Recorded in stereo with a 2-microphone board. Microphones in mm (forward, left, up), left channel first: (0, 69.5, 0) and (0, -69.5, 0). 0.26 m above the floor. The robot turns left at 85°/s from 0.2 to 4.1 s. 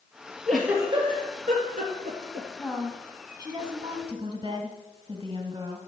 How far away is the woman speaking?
About 1.4 m.